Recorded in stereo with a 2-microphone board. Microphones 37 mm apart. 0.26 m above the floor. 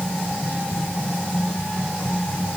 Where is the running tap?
I don't hear a running tap.